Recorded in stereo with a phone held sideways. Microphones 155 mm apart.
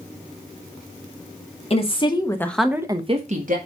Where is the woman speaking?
40° left (ahead or behind), 1.7 m; by 3.6 s 60° right (ahead or behind), 1.4 m.